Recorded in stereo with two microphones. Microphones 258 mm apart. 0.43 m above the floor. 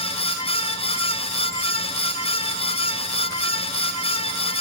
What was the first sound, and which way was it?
Only background noise.